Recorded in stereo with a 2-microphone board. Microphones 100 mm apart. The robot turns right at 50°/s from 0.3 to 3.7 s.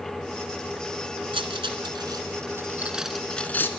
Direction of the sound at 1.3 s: 60° right (ahead or behind).